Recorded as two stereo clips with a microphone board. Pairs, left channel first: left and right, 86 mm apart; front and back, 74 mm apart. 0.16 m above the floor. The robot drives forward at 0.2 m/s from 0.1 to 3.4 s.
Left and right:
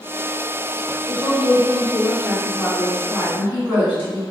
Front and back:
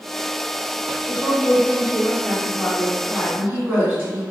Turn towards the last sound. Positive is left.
turn(degrees=-130)